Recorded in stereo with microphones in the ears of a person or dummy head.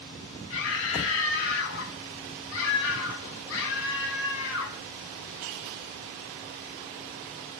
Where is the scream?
65° left (ahead or behind), 1.5 m.